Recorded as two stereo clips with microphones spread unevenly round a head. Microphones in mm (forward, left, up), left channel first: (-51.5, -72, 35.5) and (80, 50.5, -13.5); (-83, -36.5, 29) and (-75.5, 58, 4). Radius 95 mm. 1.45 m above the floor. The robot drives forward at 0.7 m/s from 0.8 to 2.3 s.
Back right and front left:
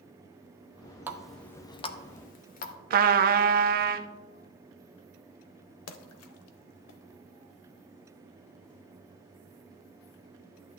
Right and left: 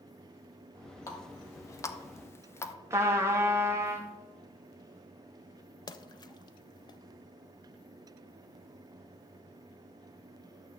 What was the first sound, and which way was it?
A running tap, 45° right.